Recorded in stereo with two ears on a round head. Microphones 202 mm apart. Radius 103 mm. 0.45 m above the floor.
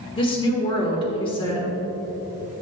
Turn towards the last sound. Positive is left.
turn(degrees=25)  # may be behind; listen again after turning